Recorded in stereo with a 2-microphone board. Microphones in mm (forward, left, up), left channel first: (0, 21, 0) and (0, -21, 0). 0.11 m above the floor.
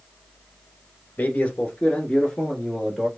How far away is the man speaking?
About 1.4 m.